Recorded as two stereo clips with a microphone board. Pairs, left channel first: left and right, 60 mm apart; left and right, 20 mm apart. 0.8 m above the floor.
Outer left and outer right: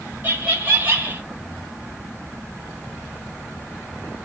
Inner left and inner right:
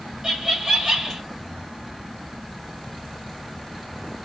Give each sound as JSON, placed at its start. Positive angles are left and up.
{"t": 0.2, "sound": "laughter", "side_deg": -30, "distance_m": 1.9}